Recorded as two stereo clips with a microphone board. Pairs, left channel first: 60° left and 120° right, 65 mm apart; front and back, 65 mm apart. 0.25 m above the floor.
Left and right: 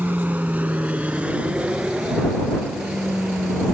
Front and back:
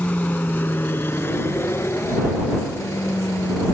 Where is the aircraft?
60° right; by 3.7 s 40° right.